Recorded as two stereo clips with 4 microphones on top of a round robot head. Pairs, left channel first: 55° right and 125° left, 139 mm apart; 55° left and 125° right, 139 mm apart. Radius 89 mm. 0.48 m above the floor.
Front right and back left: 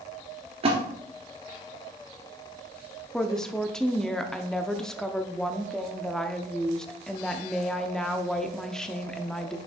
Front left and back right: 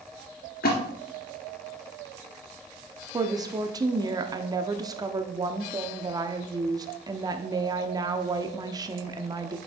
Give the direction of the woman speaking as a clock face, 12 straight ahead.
5 o'clock.